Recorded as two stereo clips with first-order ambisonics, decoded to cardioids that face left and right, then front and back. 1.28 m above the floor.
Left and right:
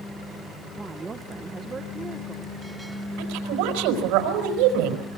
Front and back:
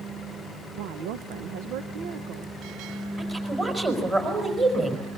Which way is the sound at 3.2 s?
105° right.